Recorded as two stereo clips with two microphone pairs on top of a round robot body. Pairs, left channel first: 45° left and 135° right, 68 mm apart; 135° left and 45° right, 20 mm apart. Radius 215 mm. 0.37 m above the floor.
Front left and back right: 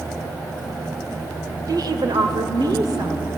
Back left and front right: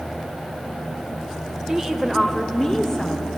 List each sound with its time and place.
1.7 s a woman speaking: 105° right, 2 m; by 3.3 s 170° right, 2.5 m